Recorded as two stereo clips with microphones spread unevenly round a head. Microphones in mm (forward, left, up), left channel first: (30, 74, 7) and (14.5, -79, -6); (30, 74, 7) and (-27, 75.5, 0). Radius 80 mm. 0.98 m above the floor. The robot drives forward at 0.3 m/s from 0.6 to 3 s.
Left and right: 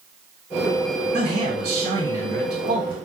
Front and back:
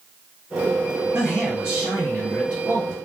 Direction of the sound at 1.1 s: 135° right.